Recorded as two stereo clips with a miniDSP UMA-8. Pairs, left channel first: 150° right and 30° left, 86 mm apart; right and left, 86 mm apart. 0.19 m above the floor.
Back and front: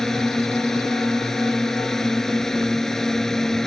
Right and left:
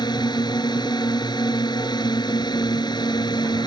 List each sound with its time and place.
0.0 s a drone: 65° right